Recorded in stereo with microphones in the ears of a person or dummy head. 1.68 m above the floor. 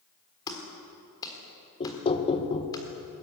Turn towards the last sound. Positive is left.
turn(degrees=25)  # may be behind; listen again after turning